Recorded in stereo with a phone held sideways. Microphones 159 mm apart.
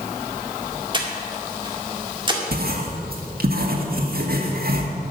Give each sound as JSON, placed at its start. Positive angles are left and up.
{"t": 0.9, "sound": "breathing", "side_deg": -30, "distance_m": 1.9}
{"t": 2.5, "sound": "writing", "side_deg": -70, "distance_m": 1.9}